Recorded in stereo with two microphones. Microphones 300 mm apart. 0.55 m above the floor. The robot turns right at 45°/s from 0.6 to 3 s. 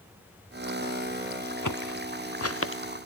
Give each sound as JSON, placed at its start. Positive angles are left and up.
{"t": 1.6, "sound": "footsteps", "side_deg": 85}